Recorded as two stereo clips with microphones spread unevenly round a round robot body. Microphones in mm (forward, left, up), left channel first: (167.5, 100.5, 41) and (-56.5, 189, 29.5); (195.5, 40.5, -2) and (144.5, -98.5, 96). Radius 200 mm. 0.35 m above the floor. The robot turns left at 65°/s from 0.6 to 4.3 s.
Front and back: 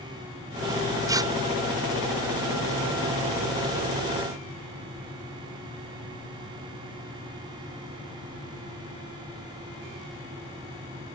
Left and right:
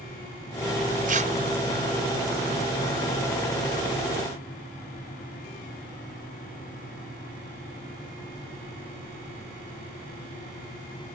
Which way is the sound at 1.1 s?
165° right.